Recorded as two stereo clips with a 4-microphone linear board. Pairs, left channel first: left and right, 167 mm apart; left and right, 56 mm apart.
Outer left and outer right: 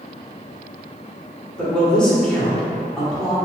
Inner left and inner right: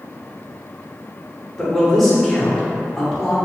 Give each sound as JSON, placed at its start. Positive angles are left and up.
{"t": 1.6, "sound": "a man speaking", "side_deg": 5, "distance_m": 1.5}